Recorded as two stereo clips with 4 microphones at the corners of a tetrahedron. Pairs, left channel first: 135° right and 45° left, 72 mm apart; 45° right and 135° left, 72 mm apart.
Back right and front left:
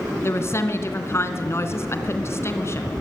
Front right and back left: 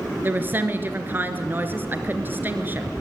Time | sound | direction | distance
0.2 | a woman speaking | 175° right | 2.5 m